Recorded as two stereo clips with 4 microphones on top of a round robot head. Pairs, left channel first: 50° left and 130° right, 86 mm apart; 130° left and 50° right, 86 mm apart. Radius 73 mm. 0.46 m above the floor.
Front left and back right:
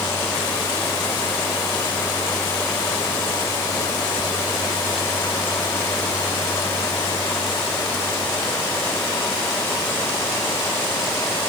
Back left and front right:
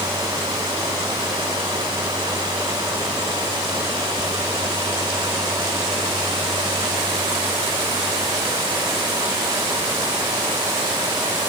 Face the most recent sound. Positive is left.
No sound to turn to.